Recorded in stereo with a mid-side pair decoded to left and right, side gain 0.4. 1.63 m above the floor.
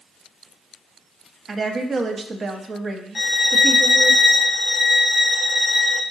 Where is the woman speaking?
45° right, 0.7 m.